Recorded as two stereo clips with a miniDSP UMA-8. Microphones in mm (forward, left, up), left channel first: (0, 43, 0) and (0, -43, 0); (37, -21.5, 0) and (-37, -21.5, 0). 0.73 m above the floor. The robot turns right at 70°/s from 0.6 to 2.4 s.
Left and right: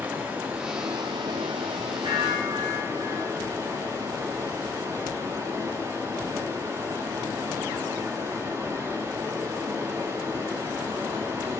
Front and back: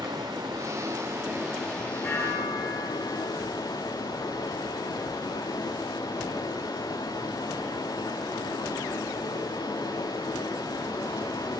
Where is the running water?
160° right, 5.5 m; by 11.6 s 35° right, 5.5 m.